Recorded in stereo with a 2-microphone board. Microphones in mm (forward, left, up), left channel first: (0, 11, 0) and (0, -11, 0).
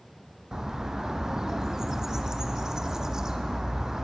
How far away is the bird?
About 0.8 m.